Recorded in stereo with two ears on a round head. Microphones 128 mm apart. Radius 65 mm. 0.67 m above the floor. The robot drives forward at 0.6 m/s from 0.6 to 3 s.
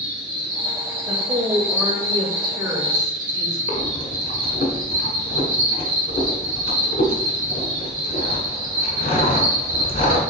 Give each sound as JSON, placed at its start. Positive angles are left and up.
{"t": 0.0, "sound": "an insect", "side_deg": -35, "distance_m": 2.5}
{"t": 1.1, "sound": "a woman speaking", "side_deg": -20, "distance_m": 2.0}
{"t": 3.7, "sound": "breathing", "side_deg": 55, "distance_m": 1.2}